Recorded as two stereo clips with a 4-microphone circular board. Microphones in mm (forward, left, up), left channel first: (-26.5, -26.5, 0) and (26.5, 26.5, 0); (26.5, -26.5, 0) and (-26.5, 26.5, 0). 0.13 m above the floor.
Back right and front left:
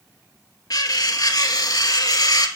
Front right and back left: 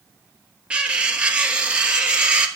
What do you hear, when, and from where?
0.7 s cutlery clinking: 150° right, 1.3 m